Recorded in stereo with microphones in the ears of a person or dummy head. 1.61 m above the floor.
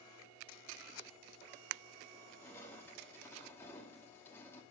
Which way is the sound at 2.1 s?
15° left (ahead or behind).